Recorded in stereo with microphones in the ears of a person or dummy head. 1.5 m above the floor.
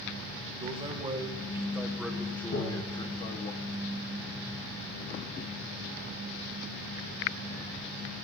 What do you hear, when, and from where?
0.6 s a man speaking: 30° right (ahead or behind), 1.7 m; by 3.5 s 40° left (ahead or behind), 1.1 m
2.5 s tapping: 55° left (ahead or behind), 5.5 m